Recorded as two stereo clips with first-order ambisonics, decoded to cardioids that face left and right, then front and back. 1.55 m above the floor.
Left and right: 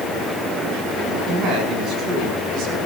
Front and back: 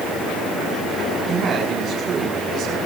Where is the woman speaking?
130° right, 7.5 m.